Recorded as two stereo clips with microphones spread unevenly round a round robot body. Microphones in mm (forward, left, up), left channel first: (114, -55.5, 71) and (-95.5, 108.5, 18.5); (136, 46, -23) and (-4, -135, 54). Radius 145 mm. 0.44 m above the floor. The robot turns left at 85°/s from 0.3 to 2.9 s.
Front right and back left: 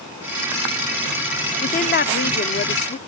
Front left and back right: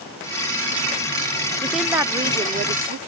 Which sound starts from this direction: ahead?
A woman speaking, at 1.6 s.